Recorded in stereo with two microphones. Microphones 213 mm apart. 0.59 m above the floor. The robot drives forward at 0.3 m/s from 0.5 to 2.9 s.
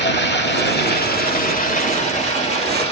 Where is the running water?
55° left (ahead or behind), 0.7 m; by 2.9 s 30° left (ahead or behind), 1.3 m.